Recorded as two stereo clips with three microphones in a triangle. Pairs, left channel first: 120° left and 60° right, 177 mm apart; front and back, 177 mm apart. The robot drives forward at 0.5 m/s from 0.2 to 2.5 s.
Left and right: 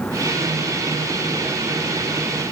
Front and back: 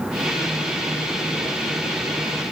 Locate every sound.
Only background noise.